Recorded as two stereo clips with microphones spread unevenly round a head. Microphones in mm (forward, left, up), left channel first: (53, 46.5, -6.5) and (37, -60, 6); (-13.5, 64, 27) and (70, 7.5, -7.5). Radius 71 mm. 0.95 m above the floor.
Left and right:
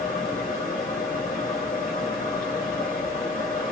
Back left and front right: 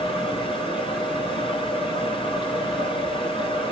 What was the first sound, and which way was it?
A fan, 110° left.